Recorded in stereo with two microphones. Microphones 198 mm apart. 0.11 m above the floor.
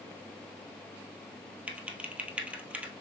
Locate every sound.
1.7 s typing on a keyboard: 5° right (ahead or behind), 1.2 m